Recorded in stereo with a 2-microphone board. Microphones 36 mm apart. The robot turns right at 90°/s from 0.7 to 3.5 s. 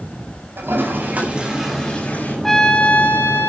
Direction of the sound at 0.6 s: 85° right.